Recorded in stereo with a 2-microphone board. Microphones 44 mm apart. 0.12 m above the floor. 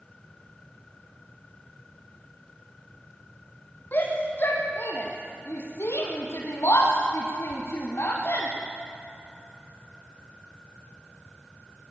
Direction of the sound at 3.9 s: 45° left (ahead or behind).